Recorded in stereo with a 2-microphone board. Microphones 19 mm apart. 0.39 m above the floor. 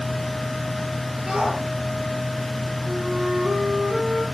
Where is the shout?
80° right, 10 m.